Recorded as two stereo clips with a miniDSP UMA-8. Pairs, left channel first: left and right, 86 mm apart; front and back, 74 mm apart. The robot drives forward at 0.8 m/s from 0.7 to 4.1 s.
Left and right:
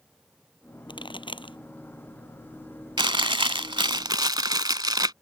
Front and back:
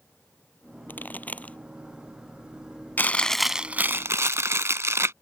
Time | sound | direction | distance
0.9 | a pop | 65° left | ?
3.0 | chewing | 65° right | ?